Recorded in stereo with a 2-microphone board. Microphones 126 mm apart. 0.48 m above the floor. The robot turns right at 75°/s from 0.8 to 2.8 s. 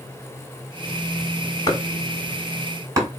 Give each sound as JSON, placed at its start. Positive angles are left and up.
{"t": 1.7, "sound": "chopping", "side_deg": 30, "distance_m": 1.5}